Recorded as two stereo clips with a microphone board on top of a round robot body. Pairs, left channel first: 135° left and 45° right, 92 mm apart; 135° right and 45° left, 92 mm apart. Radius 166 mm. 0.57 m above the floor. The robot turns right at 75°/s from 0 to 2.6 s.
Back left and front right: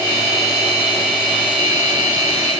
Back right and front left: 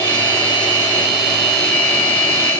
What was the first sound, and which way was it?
Only background noise.